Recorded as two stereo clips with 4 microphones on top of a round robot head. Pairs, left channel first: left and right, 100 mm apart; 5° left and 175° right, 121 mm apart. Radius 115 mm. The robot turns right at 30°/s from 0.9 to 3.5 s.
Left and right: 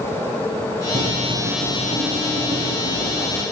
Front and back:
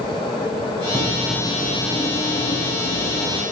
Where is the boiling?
105° right, 5.5 m; by 3.4 s 30° right, 5.5 m.